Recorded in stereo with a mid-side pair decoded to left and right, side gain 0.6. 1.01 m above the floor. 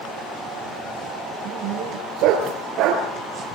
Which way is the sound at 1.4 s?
70° right.